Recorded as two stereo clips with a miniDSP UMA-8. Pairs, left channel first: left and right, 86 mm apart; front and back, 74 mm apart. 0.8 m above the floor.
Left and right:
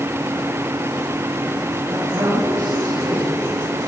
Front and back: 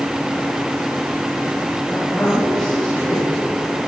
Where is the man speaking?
65° right, 7.5 m.